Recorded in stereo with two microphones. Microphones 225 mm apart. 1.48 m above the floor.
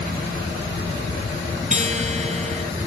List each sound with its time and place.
1.7 s a guitar: 30° right (ahead or behind), 1.5 m